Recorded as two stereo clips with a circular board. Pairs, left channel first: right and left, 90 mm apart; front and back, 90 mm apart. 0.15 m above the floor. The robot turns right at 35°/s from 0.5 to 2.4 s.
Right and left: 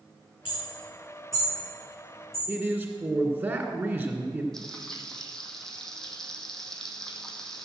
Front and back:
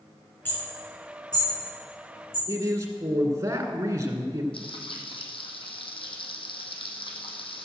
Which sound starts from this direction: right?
Hammering, at 0.5 s.